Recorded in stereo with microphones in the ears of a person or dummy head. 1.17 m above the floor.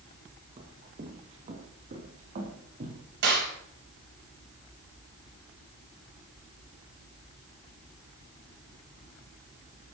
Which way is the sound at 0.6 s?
40° right (ahead or behind).